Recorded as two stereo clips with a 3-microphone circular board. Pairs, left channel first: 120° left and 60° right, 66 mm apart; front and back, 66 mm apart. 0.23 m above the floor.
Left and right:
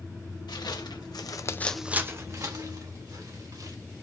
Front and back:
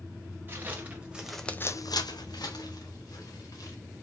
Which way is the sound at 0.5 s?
120° left.